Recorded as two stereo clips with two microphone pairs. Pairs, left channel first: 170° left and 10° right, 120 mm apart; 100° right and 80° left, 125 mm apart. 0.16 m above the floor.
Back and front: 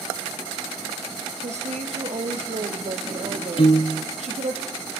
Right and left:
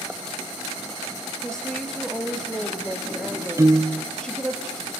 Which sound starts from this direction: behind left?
A piano, at 3.6 s.